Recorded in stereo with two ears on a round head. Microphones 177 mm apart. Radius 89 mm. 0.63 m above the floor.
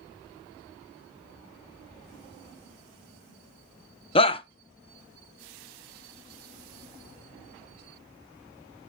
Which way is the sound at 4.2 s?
30° left (ahead or behind).